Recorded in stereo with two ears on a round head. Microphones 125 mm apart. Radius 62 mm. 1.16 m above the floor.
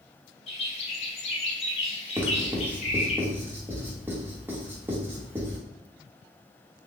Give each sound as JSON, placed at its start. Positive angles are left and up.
{"t": 0.5, "sound": "a bird", "side_deg": 45, "distance_m": 0.9}
{"t": 2.2, "sound": "writing", "side_deg": -15, "distance_m": 0.9}